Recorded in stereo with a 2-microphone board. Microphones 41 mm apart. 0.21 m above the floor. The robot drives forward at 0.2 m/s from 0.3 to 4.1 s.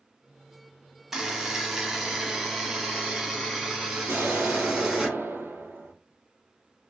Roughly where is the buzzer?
Centre.